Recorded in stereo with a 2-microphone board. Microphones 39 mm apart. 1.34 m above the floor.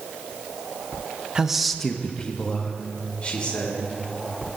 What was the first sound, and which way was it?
A man speaking, 20° right (ahead or behind).